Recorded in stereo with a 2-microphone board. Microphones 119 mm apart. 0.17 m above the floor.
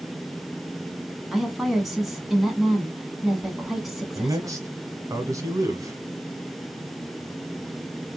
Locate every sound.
1.3 s a woman speaking: centre (ahead or behind), 1.4 m
4.2 s a man speaking: 30° right (ahead or behind), 1.2 m